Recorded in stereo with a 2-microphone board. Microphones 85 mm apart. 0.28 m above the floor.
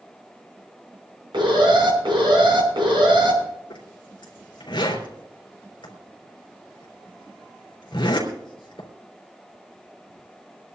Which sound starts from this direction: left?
A zipper, at 3.7 s.